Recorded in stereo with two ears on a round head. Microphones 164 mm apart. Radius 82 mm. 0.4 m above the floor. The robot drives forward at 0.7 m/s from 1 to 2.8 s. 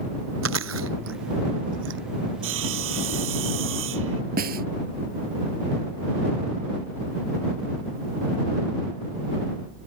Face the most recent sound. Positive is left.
turn(degrees=-55)  # may be behind; listen again after turning